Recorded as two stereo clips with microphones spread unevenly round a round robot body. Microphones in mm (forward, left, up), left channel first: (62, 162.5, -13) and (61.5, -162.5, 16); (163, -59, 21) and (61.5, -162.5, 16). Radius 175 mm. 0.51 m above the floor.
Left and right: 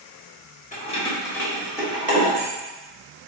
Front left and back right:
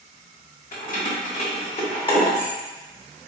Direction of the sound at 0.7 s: 25° left.